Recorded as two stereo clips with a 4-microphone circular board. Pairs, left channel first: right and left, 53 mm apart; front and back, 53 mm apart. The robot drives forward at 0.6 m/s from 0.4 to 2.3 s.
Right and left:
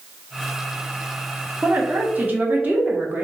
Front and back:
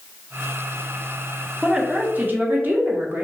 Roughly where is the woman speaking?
Left.